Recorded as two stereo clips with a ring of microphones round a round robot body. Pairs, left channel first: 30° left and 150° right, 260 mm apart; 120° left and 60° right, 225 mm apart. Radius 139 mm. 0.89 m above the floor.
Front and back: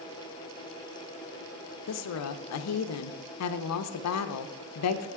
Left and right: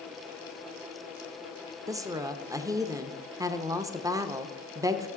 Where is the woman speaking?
15° left, 0.6 m.